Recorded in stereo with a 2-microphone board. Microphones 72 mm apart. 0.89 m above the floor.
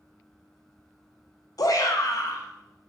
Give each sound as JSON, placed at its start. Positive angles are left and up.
{"t": 1.6, "sound": "a shout", "side_deg": 50, "distance_m": 0.6}